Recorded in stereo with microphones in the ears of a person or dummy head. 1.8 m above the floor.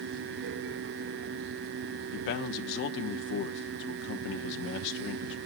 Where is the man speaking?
60° left (ahead or behind), 0.8 m.